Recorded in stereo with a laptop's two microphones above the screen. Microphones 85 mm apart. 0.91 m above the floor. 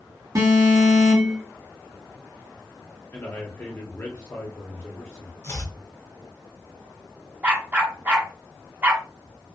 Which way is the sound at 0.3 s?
35° right (ahead or behind).